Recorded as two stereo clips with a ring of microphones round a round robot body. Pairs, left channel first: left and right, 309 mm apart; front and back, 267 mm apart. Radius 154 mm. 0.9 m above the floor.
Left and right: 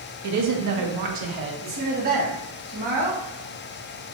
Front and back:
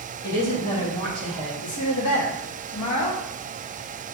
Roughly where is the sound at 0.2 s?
Ahead right.